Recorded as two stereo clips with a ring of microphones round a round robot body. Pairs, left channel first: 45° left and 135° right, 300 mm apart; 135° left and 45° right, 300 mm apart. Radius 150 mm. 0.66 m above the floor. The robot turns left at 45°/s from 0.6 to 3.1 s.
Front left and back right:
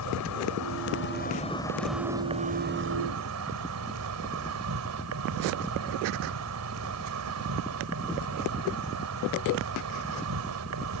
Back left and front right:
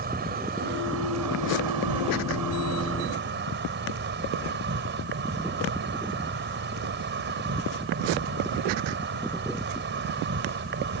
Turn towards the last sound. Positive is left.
turn(degrees=-100)